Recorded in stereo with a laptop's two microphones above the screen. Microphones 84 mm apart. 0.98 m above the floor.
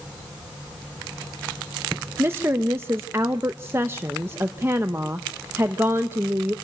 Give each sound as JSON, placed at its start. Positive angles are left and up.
{"t": 2.2, "sound": "a woman speaking", "side_deg": -30, "distance_m": 0.7}